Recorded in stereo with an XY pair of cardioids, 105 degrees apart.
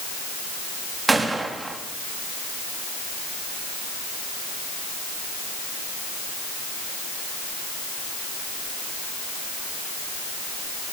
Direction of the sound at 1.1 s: 20° right.